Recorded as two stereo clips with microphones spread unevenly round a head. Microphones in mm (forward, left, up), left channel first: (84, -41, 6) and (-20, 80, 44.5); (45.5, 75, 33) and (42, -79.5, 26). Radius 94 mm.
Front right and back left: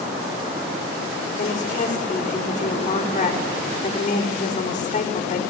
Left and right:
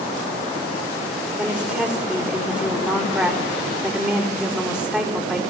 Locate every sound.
1.4 s a woman speaking: 5° left, 5 m